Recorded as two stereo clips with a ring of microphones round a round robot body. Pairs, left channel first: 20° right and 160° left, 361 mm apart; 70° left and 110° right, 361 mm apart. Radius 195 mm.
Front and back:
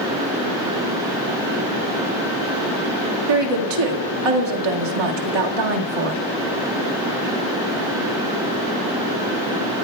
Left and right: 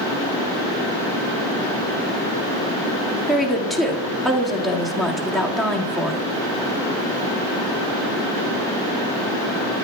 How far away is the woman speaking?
About 1.8 m.